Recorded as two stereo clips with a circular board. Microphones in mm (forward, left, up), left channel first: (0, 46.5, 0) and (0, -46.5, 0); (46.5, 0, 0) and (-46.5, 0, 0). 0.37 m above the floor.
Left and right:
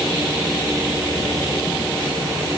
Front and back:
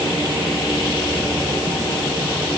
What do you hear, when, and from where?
Only background noise.